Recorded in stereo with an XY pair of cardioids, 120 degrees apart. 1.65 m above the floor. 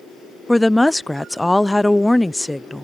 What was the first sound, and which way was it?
A woman speaking, 10° left.